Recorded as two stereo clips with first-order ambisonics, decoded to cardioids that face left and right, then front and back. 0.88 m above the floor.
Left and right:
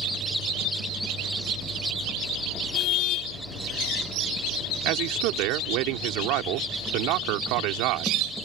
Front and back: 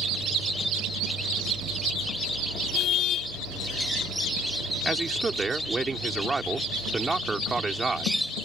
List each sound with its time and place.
2.7 s a car horn: 50° left
4.8 s a man speaking: 105° right